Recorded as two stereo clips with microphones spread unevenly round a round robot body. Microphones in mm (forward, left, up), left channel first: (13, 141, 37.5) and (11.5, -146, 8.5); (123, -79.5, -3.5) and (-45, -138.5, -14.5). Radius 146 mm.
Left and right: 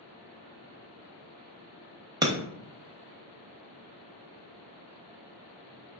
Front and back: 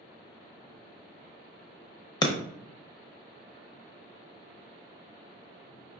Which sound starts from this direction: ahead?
Breaking glass, at 2.2 s.